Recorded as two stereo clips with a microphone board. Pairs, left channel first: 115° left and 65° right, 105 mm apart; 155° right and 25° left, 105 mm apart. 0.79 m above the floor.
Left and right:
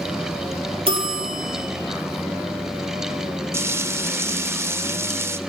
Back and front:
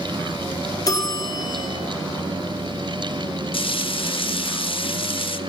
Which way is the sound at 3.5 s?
130° right.